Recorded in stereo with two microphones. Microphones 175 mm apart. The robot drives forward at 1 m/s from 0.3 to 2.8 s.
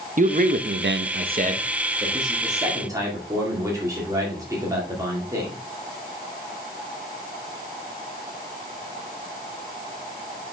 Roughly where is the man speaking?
Right.